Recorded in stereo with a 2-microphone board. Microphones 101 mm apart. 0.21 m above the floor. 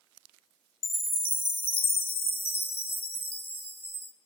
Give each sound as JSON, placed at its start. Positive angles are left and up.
{"t": 0.8, "sound": "a chime", "side_deg": 70, "distance_m": 2.5}